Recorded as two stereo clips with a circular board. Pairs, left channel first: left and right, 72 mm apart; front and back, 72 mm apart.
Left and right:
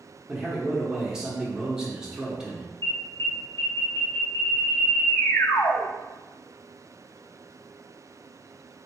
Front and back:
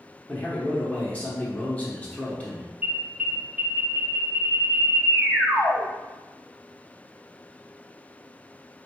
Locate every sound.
0.3 s a man speaking: 30° right, 1.0 m
2.8 s an alarm: 115° left, 0.9 m